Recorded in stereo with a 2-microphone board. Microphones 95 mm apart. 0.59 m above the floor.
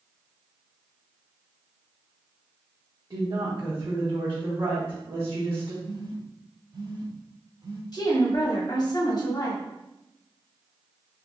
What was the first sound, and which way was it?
A woman speaking, 45° right (ahead or behind).